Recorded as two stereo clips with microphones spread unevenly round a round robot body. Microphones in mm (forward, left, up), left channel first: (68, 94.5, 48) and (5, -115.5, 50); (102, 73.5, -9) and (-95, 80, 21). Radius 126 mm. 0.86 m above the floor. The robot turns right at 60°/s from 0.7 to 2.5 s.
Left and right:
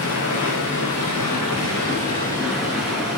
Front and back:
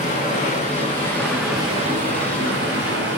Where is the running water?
55° left, 6 m; by 3.2 s 160° left, 6 m.